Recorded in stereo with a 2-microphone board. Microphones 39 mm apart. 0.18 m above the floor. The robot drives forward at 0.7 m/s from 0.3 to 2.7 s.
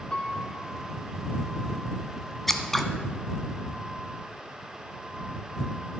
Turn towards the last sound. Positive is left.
turn(degrees=5)  # may be behind; listen again after turning